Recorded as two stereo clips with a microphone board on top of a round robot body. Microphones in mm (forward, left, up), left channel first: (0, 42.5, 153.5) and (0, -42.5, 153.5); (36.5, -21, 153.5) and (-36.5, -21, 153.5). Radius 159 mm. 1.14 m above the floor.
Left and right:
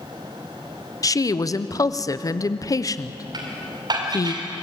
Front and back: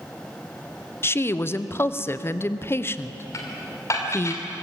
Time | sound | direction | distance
1.0 | a woman speaking | 50° left | 1.0 m
3.3 | dishes clattering | 50° right | 2.5 m